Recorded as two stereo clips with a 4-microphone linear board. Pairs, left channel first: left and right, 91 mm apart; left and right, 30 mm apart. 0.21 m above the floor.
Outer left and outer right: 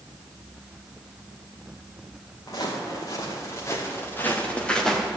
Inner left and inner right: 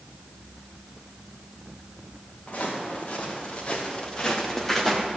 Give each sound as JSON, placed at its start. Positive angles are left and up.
{"t": 2.5, "sound": "footsteps", "side_deg": 45, "distance_m": 4.0}